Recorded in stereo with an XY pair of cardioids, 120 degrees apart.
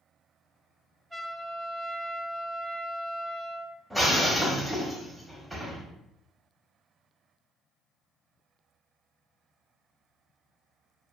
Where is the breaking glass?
10° right, 1.1 m.